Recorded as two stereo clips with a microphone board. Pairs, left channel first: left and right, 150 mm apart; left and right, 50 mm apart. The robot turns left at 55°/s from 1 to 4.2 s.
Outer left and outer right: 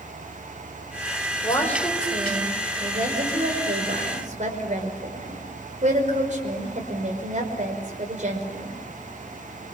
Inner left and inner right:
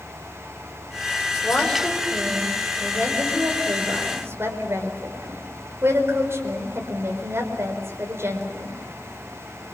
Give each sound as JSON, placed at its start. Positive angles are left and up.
{"t": 1.4, "sound": "a woman speaking", "side_deg": 25, "distance_m": 5.0}